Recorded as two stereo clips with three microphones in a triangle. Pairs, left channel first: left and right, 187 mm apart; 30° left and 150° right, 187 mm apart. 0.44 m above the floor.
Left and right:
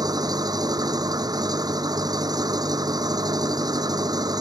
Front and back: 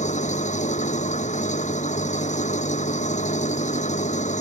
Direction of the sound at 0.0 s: 20° right.